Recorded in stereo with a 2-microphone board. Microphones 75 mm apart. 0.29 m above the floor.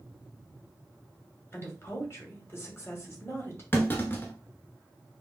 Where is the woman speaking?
35° left (ahead or behind), 1.4 m.